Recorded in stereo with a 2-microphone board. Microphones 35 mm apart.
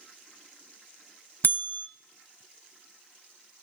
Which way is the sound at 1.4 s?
70° left (ahead or behind).